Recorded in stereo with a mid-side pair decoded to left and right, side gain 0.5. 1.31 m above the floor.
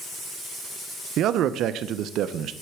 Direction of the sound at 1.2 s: 65° right.